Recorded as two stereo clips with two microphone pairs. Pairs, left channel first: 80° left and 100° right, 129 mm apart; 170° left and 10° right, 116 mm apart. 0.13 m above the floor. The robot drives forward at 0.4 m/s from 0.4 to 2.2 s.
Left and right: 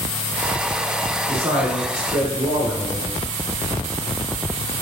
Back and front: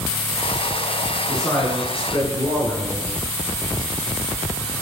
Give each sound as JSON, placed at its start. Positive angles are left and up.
{"t": 1.3, "sound": "a man speaking", "azimuth_deg": -120, "distance_m": 1.3}